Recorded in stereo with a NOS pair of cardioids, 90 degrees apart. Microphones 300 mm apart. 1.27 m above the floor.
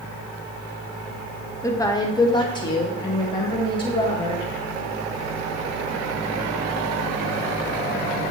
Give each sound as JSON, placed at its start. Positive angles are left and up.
{"t": 1.6, "sound": "a woman speaking", "azimuth_deg": 10, "distance_m": 1.2}